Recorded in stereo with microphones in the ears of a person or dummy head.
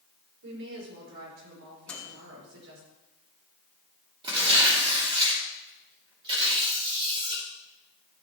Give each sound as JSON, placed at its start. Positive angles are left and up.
{"t": 0.4, "sound": "a woman speaking", "side_deg": -70, "distance_m": 6.0}
{"t": 1.9, "sound": "a microwave", "side_deg": 10, "distance_m": 2.5}
{"t": 4.2, "sound": "tearing paper", "side_deg": -20, "distance_m": 3.5}